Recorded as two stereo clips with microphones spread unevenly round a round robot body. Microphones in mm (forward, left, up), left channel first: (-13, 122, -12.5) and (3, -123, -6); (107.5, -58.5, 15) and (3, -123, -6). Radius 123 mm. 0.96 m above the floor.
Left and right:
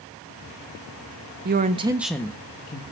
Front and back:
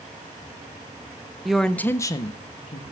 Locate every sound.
1.4 s a woman speaking: 80° right, 0.9 m; by 2.8 s 60° left, 1.0 m